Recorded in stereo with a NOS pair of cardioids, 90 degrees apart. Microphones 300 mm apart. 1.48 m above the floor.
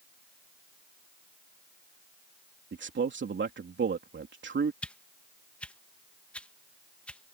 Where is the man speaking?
40° right.